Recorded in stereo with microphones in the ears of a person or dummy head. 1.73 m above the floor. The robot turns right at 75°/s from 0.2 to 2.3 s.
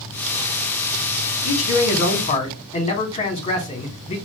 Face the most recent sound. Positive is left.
turn(degrees=145)